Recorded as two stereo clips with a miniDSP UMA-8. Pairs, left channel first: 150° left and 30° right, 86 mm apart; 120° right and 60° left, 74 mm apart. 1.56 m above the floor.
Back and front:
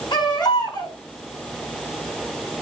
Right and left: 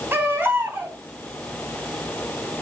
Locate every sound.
0.1 s a baby crying: 125° left, 5 m